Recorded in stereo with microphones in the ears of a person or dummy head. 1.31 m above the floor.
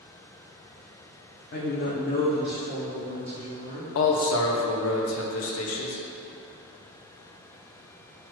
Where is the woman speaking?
50° left (ahead or behind), 0.7 m; by 3.9 s 20° left (ahead or behind), 2.5 m.